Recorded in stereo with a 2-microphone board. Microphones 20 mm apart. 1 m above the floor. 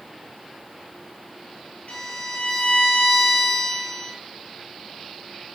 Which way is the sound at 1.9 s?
85° left.